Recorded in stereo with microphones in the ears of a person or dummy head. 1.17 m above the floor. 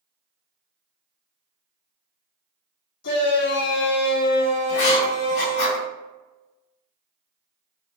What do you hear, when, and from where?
3.0 s a shout: 50° left (ahead or behind), 1.3 m
4.7 s writing: 55° left (ahead or behind), 1.6 m